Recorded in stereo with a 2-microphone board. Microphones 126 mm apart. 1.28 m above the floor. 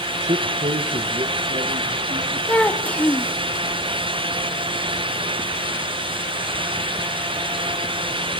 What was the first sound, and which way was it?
A man speaking, 55° right (ahead or behind).